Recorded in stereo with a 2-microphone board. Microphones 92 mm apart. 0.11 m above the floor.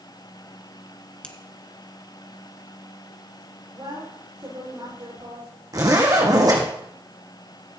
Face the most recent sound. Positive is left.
turn(degrees=-40)  # may be behind; listen again after turning